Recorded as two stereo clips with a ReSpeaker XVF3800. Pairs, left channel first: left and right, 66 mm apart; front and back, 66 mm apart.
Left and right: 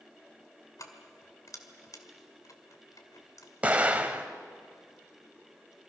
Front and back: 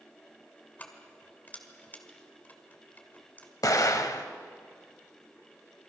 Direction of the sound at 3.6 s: 25° right.